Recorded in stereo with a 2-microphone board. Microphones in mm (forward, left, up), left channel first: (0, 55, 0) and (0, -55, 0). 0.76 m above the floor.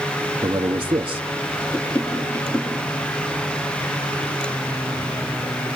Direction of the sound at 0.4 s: 45° right (ahead or behind).